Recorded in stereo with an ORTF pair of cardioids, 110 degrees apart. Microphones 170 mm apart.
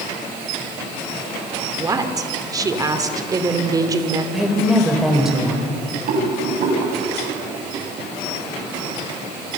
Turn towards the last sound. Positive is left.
turn(degrees=-65)